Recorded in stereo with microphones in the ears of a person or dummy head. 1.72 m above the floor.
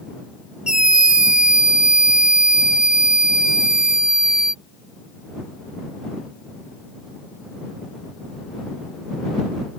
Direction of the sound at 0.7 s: Centre (ahead or behind).